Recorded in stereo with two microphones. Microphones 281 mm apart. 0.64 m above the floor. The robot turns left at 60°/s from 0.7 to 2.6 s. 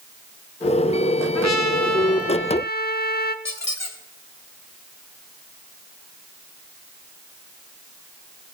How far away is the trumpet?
About 0.7 m.